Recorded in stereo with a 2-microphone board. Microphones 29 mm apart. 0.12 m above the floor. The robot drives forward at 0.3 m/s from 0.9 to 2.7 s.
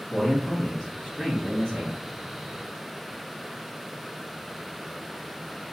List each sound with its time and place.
0.1 s a man speaking: 5° left (ahead or behind), 1.5 m